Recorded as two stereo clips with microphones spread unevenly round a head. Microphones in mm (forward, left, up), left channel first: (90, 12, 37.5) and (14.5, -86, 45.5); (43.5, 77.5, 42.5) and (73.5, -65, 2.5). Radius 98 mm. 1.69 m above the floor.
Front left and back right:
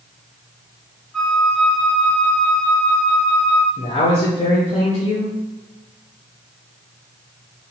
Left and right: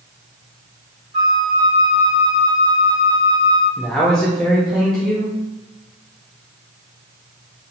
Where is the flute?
30° right, 1.6 m.